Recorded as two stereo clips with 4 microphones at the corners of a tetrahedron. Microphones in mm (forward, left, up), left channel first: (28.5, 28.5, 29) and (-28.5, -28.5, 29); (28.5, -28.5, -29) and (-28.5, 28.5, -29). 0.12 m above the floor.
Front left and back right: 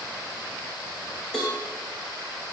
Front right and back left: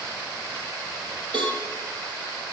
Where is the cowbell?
125° left, 3.5 m.